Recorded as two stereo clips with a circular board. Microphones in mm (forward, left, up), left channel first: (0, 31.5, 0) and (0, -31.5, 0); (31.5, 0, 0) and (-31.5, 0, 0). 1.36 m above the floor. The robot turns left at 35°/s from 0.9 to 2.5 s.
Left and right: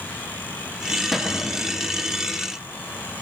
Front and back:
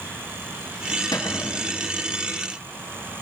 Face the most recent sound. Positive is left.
turn(degrees=-45)